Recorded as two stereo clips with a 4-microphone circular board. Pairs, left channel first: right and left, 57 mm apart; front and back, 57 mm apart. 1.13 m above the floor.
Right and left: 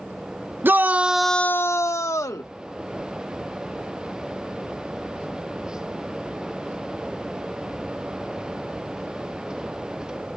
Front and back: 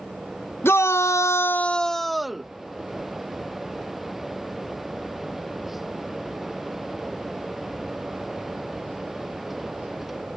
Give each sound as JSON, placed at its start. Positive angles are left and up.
{"t": 0.6, "sound": "a shout", "azimuth_deg": 45}